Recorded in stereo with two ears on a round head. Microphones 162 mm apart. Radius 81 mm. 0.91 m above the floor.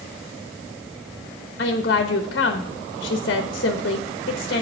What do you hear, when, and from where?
1.6 s a woman speaking: 60° left (ahead or behind), 0.8 m